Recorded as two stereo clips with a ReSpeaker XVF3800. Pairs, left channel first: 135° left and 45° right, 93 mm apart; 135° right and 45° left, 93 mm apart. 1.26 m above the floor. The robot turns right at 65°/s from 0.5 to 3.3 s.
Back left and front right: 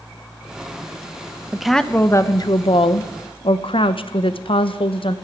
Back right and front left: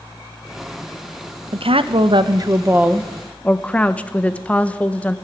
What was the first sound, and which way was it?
A woman speaking, 35° left.